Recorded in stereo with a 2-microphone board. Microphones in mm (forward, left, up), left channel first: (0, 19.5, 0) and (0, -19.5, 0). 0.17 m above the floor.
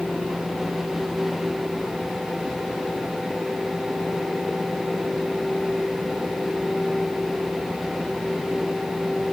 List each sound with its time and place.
Only background noise.